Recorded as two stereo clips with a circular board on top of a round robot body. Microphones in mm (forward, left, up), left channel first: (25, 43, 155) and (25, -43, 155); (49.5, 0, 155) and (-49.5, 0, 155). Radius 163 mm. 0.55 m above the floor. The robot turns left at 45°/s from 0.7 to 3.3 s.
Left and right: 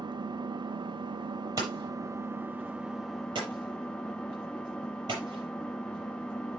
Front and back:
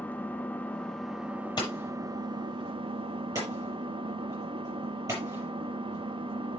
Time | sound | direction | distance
0.0 | an engine running | 75° right | 1.2 m
1.6 | hammering | 45° right | 6.5 m